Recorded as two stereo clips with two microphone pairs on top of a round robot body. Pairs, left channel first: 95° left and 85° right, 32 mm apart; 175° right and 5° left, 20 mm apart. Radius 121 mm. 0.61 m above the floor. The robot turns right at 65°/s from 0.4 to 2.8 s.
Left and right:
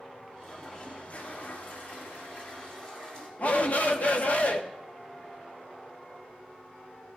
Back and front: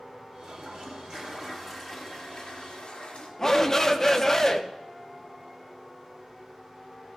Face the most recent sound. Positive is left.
turn(degrees=125)